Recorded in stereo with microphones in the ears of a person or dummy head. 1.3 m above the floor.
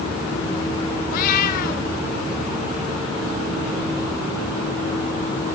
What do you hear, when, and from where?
1.1 s a cat meowing: 55° left (ahead or behind), 1.4 m